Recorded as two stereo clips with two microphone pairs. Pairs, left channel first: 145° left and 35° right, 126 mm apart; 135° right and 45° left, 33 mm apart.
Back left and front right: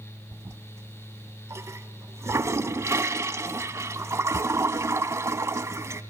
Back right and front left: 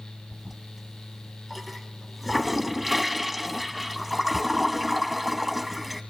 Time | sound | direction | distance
0.3 | a toilet flushing | 35° right | 0.6 m